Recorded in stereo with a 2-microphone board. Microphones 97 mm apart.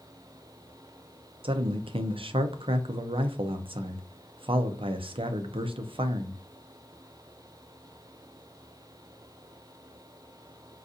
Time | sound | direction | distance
1.4 | a man speaking | 70° right (ahead or behind) | 0.5 m